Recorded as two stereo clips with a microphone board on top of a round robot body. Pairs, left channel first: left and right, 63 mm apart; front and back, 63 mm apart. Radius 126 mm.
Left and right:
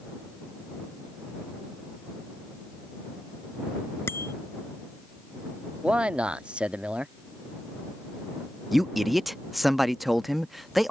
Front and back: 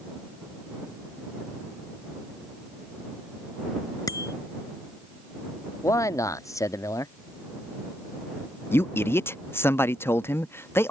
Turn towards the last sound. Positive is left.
turn(degrees=-5)